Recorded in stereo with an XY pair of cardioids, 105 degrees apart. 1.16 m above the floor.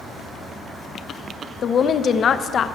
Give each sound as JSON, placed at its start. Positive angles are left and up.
{"t": 1.6, "sound": "a woman speaking", "azimuth_deg": 50, "distance_m": 0.6}